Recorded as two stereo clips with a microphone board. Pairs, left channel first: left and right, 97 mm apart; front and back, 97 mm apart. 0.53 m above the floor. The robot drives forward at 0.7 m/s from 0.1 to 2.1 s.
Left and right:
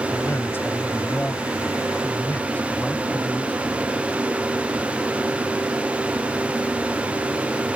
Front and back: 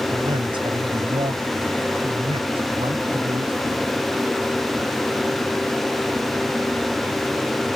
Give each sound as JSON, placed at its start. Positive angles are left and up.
{"t": 0.1, "sound": "a man speaking", "azimuth_deg": 150}